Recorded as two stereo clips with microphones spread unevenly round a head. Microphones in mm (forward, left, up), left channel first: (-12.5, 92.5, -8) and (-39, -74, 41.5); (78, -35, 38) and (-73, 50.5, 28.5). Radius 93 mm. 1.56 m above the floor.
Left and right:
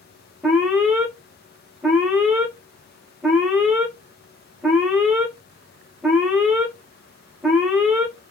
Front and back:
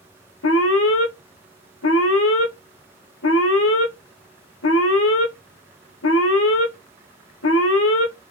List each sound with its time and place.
0.4 s an alarm: 20° right, 0.7 m